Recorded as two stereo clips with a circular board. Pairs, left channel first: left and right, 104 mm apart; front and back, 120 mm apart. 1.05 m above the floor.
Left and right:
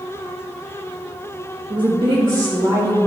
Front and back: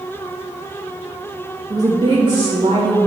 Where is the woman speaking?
120° right, 1.3 m; by 3.0 s 130° right, 2.5 m.